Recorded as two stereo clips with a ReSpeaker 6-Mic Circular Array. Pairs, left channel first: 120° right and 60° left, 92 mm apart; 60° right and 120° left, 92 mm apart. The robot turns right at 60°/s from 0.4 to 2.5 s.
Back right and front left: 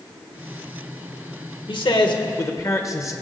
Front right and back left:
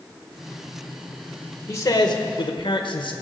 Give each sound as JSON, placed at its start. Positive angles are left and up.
{"t": 1.7, "sound": "a man speaking", "azimuth_deg": -115, "distance_m": 1.2}